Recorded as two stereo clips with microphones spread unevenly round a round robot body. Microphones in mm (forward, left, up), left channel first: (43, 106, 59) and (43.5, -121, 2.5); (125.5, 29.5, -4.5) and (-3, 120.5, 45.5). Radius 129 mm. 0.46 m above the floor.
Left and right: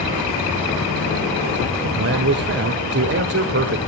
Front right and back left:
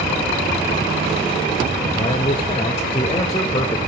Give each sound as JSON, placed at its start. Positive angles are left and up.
{"t": 1.8, "sound": "a man speaking", "azimuth_deg": -90, "distance_m": 1.5}